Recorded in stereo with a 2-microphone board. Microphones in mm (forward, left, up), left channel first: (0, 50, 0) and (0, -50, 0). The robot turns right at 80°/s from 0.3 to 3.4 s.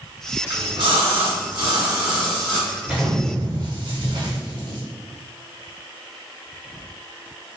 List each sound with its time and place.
0.5 s a splash: 145° right, 1.1 m; by 2.7 s 35° left, 1.1 m
2.8 s an explosion: straight behind, 0.8 m; by 4.8 s 135° right, 0.8 m